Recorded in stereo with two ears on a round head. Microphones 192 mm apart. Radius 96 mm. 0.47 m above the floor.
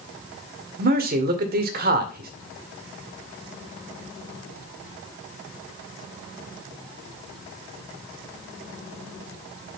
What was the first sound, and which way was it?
A man speaking, 45° right (ahead or behind).